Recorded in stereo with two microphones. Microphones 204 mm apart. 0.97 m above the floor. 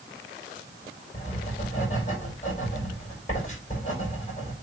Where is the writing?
35° left (ahead or behind), 5 m.